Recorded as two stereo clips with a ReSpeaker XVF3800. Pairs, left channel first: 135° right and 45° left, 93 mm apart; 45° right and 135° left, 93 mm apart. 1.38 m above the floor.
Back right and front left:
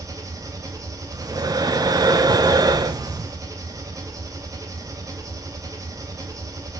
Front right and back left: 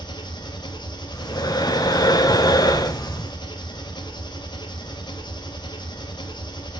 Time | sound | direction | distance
0.0 | an engine running | 10° right | 1.2 m
1.1 | breathing | straight ahead | 0.7 m